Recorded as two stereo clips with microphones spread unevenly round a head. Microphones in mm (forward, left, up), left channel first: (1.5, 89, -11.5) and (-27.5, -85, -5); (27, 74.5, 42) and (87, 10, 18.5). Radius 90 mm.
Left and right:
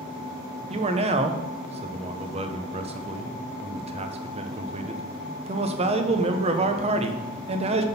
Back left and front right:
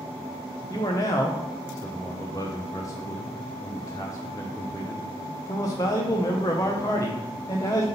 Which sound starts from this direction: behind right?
A man speaking, at 0.7 s.